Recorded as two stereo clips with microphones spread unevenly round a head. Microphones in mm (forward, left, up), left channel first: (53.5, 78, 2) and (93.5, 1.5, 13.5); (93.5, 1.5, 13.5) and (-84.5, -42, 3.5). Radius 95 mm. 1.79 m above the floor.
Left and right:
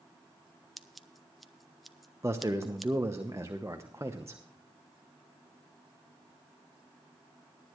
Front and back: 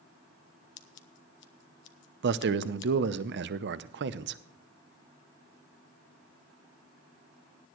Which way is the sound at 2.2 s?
135° right.